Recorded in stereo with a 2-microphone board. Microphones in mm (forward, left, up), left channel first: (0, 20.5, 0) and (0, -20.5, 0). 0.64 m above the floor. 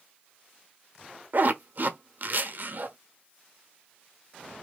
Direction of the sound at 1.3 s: 55° right (ahead or behind).